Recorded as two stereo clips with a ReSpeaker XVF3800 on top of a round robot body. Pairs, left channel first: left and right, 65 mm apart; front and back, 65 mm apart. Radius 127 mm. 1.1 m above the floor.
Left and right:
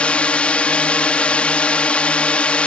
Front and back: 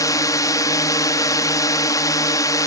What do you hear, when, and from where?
0.0 s a drone: 20° left